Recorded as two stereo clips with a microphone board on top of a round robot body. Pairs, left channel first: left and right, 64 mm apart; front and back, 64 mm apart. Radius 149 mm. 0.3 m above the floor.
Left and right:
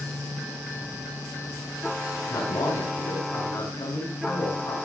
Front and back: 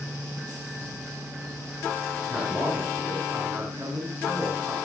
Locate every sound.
2.3 s a man speaking: 120° left, 7 m